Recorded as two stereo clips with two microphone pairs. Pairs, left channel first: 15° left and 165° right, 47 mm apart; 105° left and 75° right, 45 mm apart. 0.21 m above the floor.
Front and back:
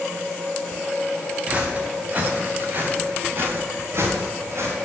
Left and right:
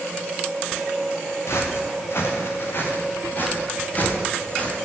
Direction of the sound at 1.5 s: 130° left.